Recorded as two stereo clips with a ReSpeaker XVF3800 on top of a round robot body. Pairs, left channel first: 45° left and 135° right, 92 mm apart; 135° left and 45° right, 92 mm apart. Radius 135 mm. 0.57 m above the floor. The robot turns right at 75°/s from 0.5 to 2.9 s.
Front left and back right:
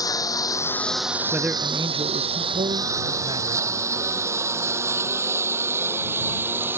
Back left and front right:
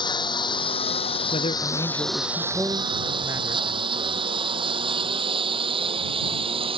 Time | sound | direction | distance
0.0 | a lawn mower | 95° left | ?
1.3 | a man speaking | 140° left | ?